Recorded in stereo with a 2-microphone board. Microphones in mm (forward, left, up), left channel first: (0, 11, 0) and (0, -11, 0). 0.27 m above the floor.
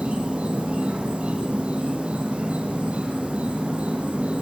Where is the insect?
80° right, 3.5 m.